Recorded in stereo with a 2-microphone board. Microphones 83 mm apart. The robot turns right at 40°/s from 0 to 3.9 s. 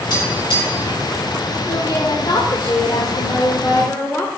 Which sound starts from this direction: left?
Tapping, at 0.1 s.